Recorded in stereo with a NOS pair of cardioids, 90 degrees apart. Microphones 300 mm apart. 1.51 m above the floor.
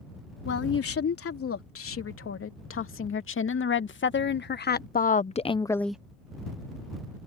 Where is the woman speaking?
50° left; by 6.0 s 5° right.